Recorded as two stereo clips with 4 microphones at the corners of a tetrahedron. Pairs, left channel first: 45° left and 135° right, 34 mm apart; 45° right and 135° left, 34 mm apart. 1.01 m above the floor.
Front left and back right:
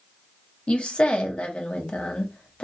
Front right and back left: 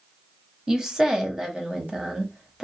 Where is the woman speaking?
75° left, 0.8 m.